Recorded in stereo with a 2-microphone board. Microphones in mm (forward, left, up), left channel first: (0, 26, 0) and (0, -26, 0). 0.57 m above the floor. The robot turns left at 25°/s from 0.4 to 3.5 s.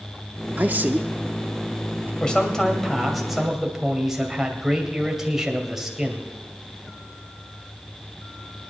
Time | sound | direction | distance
0.6 | a man speaking | 40° right (ahead or behind) | 0.9 m
2.2 | a man speaking | 20° left | 2.5 m